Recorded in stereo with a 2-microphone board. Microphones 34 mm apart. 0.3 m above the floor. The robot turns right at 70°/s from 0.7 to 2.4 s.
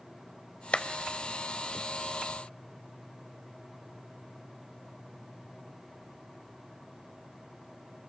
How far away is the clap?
About 0.9 m.